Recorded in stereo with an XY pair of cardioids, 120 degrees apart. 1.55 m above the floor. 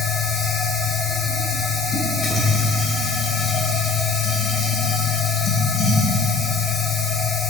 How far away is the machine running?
About 2.0 m.